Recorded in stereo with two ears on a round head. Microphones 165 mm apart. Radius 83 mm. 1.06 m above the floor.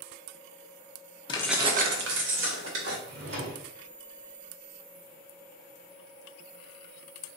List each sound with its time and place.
1.3 s keys jangling: 30° left (ahead or behind), 0.6 m; by 3.0 s 85° right, 2 m
3.0 s a drawer: 70° right (ahead or behind), 1.8 m